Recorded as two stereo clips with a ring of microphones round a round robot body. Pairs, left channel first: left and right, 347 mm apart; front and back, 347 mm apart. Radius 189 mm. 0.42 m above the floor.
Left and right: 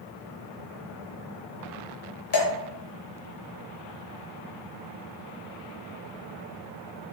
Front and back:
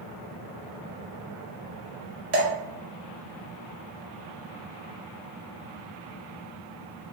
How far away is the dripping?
About 0.9 m.